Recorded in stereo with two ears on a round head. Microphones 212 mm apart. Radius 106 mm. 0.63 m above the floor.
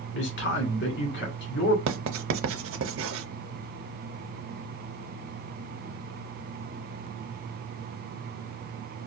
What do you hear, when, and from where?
0.1 s a man speaking: 50° left (ahead or behind), 1.7 m
1.9 s writing: 60° right (ahead or behind), 0.6 m